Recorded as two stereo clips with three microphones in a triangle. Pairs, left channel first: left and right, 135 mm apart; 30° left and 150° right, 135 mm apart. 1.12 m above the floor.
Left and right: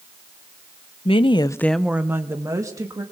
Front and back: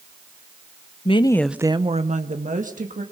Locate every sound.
1.1 s a woman speaking: 60° left, 0.8 m; by 3.0 s 155° right, 2 m